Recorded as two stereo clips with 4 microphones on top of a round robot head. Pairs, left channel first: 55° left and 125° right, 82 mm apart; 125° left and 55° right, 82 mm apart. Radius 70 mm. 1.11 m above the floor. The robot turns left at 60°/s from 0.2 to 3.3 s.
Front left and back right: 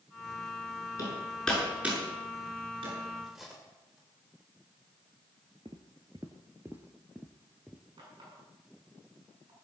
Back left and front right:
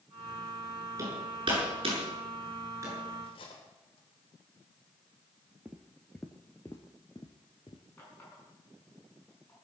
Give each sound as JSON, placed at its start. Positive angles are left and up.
{"t": 1.0, "sound": "hammering", "azimuth_deg": 0, "distance_m": 7.5}
{"t": 3.2, "sound": "cutlery clinking", "azimuth_deg": 150, "distance_m": 3.0}
{"t": 5.7, "sound": "footsteps", "azimuth_deg": -120, "distance_m": 1.2}
{"t": 8.0, "sound": "a running tap", "azimuth_deg": -170, "distance_m": 7.0}